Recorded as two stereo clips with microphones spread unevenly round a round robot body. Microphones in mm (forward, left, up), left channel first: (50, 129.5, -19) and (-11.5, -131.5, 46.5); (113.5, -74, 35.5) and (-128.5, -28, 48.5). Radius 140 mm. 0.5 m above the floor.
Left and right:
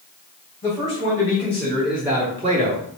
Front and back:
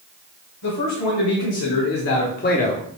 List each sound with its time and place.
0.6 s a man speaking: 5° left, 2.5 m; by 2.9 s 70° right, 0.9 m